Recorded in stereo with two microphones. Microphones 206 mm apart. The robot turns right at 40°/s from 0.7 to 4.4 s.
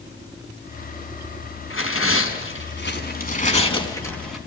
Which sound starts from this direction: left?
Tearing paper, at 1.7 s.